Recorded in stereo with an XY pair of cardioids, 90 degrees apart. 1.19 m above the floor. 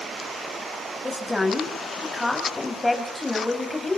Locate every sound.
1.0 s a woman speaking: 15° left, 7.5 m